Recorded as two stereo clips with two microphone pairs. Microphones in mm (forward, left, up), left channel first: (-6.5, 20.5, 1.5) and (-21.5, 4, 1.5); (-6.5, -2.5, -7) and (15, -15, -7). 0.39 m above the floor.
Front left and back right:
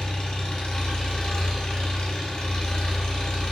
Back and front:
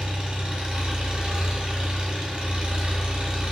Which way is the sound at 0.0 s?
15° left.